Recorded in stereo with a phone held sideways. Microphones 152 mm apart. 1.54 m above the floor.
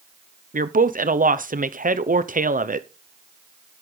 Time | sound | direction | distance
0.5 | a woman speaking | 60° right (ahead or behind) | 0.7 m